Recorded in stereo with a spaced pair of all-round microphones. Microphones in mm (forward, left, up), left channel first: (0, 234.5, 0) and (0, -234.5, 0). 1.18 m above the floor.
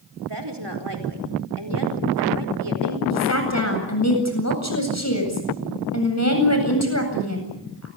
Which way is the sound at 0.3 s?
60° right (ahead or behind).